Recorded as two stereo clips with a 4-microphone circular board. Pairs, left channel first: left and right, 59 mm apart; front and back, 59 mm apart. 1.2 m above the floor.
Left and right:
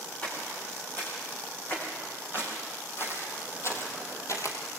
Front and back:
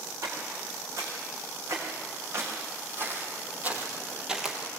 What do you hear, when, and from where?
0.2 s footsteps: 150° left, 6.5 m; by 4.8 s 85° left, 2 m